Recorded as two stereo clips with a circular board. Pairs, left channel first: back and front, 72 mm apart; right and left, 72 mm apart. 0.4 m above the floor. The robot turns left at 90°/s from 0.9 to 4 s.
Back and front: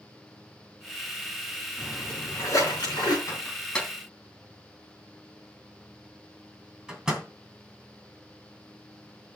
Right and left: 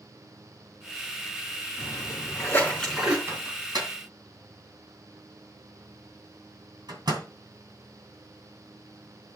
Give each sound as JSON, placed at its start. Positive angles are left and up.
{"t": 1.8, "sound": "a splash", "azimuth_deg": -75, "distance_m": 4.5}
{"t": 3.3, "sound": "a microwave", "azimuth_deg": 145, "distance_m": 2.5}